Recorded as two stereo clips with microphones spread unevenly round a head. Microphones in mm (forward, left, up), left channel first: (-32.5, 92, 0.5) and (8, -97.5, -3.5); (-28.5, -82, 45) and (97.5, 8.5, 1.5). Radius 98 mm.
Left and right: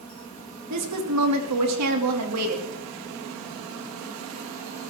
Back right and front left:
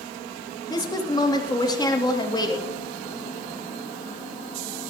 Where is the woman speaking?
75° right, 2.5 m.